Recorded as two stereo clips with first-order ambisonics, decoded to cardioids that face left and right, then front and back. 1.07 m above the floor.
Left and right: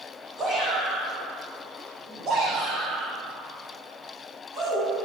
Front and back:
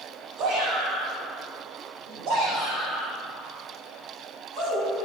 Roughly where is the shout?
Behind right.